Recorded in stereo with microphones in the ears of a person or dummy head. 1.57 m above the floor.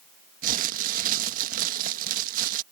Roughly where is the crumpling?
Right.